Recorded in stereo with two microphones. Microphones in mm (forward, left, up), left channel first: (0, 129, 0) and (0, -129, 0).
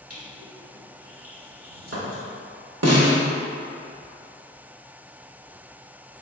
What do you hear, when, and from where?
0.1 s crushing: 70° right (ahead or behind), 1.5 m
2.8 s a snare drum: 75° right (ahead or behind), 0.9 m